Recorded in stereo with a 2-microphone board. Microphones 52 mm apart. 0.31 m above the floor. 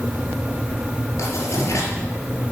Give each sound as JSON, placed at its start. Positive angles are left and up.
{"t": 1.2, "sound": "writing", "side_deg": 70, "distance_m": 5.0}